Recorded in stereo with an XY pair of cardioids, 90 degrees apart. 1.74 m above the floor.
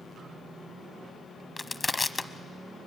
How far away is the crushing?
About 0.9 m.